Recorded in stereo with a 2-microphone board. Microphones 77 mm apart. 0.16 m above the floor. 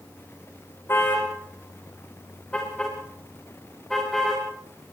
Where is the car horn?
30° left (ahead or behind), 5.5 m; by 4.4 s centre (ahead or behind), 9 m.